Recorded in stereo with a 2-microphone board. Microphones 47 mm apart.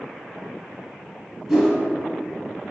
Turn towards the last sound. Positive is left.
turn(degrees=-10)  # may be behind; listen again after turning